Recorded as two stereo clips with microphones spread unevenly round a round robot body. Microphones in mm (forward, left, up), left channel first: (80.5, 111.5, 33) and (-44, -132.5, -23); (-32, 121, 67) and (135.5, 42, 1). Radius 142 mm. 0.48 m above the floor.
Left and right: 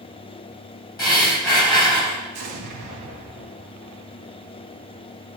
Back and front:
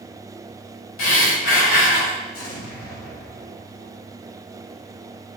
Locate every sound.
1.0 s breathing: 145° left, 3.5 m
2.3 s an explosion: 175° right, 3.5 m